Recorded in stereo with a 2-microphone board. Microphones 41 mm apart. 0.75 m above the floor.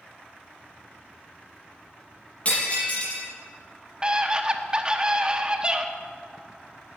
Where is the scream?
20° right (ahead or behind), 1.1 m.